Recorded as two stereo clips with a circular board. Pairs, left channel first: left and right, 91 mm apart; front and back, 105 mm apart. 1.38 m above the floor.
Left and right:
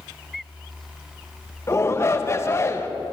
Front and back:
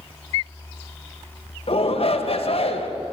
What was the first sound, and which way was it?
A shout, 25° left.